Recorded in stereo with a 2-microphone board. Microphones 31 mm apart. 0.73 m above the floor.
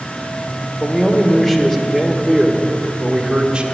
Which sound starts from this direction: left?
A man speaking, at 0.8 s.